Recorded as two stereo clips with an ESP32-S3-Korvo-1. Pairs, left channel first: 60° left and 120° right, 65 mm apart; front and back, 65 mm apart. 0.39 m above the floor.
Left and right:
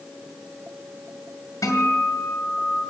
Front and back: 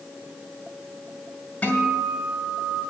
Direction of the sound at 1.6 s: 65° left.